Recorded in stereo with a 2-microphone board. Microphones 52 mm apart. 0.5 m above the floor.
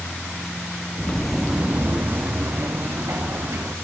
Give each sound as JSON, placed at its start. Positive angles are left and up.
{"t": 1.0, "sound": "footsteps", "side_deg": 25, "distance_m": 0.5}